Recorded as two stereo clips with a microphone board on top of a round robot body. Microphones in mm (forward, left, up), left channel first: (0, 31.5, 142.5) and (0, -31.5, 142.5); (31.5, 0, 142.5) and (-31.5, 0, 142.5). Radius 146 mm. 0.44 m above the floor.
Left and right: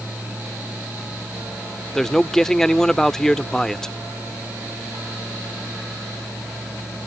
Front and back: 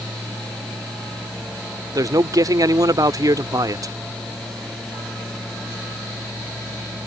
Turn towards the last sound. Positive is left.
turn(degrees=170)